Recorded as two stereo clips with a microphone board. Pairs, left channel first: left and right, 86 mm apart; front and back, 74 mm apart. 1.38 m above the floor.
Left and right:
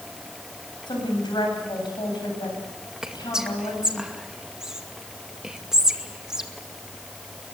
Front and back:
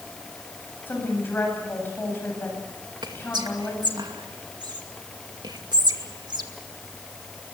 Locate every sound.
0.9 s a woman speaking: 60° left, 8 m
3.0 s whispering: 170° right, 2 m